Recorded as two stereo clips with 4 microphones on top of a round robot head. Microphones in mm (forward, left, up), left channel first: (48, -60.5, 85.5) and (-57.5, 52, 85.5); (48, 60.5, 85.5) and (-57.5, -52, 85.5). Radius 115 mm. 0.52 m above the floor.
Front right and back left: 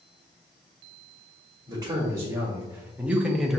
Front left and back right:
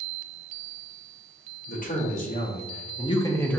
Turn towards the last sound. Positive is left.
turn(degrees=35)